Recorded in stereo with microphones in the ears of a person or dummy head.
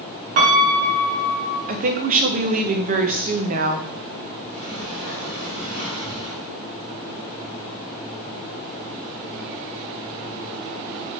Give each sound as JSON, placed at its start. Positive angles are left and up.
{"t": 0.4, "sound": "a piano", "side_deg": -50, "distance_m": 0.8}
{"t": 1.7, "sound": "a woman speaking", "side_deg": -45, "distance_m": 0.6}
{"t": 4.5, "sound": "a sliding door", "side_deg": -50, "distance_m": 1.9}